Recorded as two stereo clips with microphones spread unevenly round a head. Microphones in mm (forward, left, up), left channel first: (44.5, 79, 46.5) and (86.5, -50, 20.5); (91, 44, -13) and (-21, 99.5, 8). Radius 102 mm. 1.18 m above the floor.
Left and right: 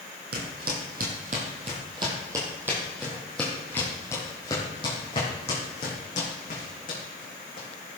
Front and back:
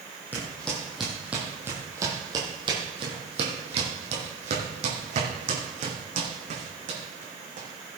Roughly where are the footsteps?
Right.